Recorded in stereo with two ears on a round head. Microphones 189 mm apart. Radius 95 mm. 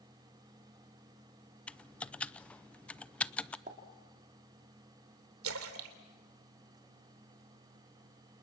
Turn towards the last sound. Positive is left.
turn(degrees=-75)  # may be behind; listen again after turning